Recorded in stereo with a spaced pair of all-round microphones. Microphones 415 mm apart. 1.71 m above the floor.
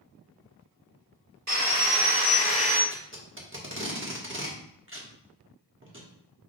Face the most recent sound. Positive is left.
turn(degrees=-30)  # may be behind; listen again after turning